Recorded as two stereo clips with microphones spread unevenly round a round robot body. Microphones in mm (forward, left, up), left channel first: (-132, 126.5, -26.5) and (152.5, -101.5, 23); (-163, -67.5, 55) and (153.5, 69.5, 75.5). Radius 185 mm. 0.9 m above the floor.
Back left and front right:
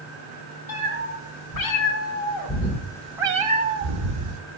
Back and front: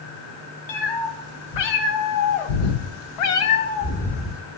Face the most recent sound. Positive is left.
turn(degrees=-60)